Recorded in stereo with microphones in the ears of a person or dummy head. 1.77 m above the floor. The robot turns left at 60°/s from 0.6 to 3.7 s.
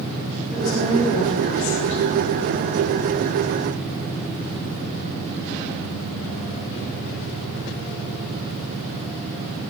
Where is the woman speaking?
175° right, 4 m; by 2.0 s 105° left, 4 m.